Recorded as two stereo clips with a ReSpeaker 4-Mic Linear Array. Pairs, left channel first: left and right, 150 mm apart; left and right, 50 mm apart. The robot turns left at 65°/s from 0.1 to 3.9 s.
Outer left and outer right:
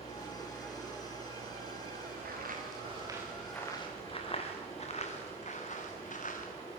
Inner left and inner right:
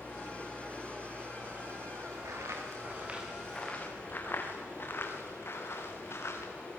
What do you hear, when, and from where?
0.0 s running water: 45° left, 9.5 m; by 6.8 s 155° left, 9.5 m
2.2 s footsteps: 85° right, 6 m; by 6.5 s 60° left (ahead or behind), 5.5 m